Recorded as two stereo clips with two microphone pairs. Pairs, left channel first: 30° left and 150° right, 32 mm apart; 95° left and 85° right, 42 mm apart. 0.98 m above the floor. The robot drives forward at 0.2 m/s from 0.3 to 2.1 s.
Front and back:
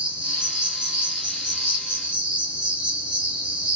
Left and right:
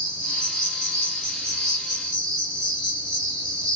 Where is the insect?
155° left, 1.2 m; by 3.8 s 160° left, 1.5 m.